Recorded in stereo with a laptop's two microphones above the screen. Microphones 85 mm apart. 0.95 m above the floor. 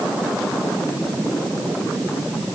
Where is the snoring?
No snoring in this recording.